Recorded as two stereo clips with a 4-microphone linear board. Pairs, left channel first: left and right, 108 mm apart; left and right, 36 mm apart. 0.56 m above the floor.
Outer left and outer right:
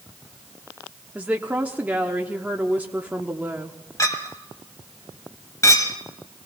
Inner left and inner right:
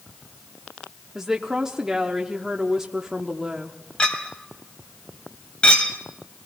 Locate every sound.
1.1 s a woman speaking: 15° right (ahead or behind), 0.9 m
4.0 s a clink: 30° left (ahead or behind), 1.8 m